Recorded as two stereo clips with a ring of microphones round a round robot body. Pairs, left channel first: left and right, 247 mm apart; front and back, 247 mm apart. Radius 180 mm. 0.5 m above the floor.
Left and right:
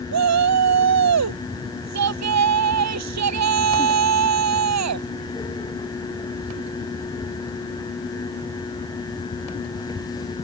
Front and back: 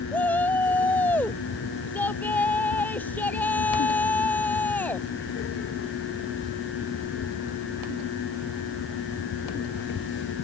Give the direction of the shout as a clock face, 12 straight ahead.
3 o'clock.